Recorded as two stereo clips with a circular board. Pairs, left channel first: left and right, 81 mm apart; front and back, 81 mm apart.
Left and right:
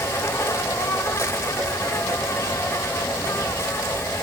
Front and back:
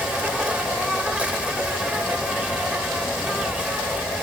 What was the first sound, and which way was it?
An insect, 115° left.